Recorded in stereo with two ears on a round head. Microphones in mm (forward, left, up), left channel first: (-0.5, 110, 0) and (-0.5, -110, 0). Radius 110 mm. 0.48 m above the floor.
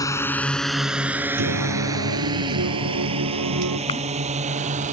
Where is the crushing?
20° left (ahead or behind).